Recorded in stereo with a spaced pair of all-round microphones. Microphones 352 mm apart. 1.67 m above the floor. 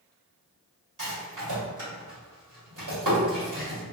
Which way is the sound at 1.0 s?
55° right (ahead or behind).